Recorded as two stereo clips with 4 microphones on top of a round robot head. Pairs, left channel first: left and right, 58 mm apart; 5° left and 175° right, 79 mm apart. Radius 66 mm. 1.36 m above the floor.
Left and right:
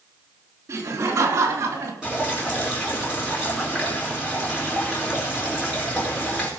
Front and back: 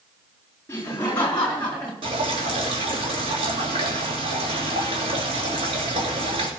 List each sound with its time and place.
0.7 s laughter: 65° right, 3.5 m; by 1.9 s 75° right, 3.5 m
2.0 s dripping: 170° right, 3 m